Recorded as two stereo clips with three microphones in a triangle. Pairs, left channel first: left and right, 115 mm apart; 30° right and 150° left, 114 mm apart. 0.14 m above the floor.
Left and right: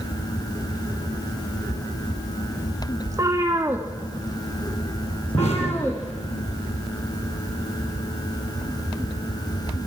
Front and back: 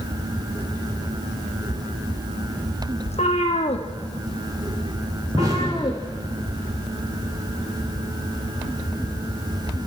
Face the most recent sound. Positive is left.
turn(degrees=95)